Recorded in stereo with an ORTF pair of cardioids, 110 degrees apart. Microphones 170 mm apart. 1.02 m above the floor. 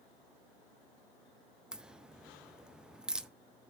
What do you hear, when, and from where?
1.7 s a crack: 5° right, 0.5 m